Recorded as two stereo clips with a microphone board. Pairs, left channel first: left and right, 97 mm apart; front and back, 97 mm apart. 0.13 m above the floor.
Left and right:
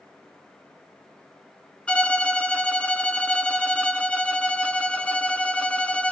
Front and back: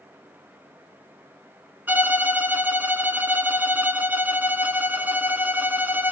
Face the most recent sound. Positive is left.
turn(degrees=150)